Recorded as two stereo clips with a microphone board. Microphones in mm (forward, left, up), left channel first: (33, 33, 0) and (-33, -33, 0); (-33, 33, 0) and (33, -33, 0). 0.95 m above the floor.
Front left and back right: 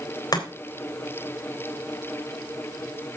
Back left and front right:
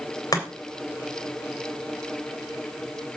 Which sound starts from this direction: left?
Chopping, at 0.3 s.